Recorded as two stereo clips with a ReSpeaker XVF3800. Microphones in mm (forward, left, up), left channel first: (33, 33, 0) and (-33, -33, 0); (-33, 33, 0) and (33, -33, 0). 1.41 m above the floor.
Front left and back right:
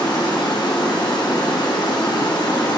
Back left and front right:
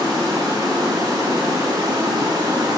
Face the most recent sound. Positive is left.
turn(degrees=5)